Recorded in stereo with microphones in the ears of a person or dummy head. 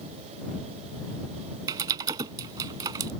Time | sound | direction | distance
1.7 | typing on a keyboard | 15° right (ahead or behind) | ?